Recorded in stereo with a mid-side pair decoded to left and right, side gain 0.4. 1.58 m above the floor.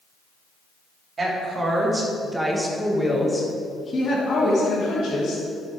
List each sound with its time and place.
1.2 s a woman speaking: 40° right, 3.5 m; by 5.5 s 65° left, 3.5 m